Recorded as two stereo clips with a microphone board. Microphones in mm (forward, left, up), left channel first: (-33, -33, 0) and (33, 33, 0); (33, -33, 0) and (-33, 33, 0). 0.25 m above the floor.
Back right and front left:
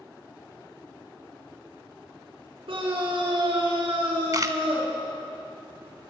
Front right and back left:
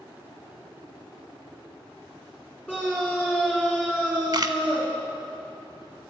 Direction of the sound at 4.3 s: 95° left.